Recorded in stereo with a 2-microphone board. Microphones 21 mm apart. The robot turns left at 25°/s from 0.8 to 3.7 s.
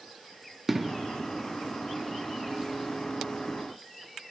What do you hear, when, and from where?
0.7 s an explosion: 10° right (ahead or behind), 0.6 m; by 1.0 s 15° right (ahead or behind), 0.6 m